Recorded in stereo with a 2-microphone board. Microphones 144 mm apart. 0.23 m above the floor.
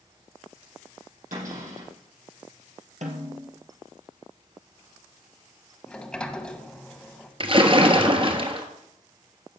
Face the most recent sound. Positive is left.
turn(degrees=-40)  # may be behind; listen again after turning